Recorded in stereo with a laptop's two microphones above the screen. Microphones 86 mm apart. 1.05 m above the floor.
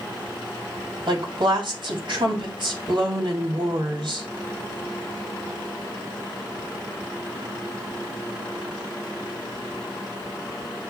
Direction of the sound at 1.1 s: 65° right (ahead or behind).